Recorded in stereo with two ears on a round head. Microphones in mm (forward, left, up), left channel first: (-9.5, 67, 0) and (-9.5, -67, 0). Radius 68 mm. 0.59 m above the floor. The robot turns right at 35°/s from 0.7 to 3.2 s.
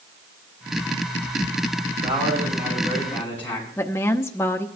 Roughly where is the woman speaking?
Centre.